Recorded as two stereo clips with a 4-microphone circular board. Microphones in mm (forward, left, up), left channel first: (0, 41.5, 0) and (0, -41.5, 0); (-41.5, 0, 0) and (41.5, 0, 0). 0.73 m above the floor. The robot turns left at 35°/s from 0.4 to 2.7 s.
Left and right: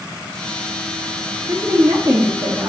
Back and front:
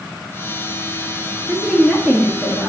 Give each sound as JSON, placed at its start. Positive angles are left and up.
{"t": 1.5, "sound": "a woman speaking", "azimuth_deg": -60, "distance_m": 1.5}